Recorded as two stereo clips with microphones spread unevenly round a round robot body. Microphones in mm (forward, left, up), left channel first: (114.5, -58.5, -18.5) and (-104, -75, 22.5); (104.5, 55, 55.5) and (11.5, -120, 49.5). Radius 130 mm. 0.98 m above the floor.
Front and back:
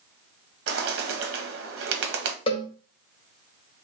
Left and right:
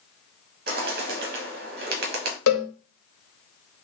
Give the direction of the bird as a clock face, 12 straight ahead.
5 o'clock.